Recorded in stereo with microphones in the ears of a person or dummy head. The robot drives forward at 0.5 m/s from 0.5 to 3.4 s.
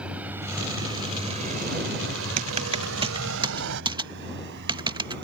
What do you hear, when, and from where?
0.0 s a vehicle: 5° right (ahead or behind); by 5.2 s 60° right (ahead or behind)
2.4 s typing on a keyboard: 35° right (ahead or behind); by 5.2 s 20° right (ahead or behind)